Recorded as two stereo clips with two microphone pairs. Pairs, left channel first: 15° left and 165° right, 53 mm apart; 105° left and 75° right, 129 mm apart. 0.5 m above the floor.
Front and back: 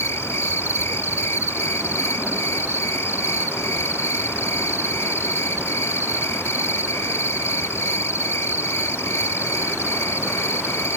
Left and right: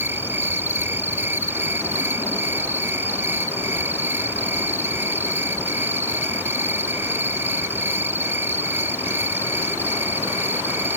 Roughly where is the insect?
Ahead.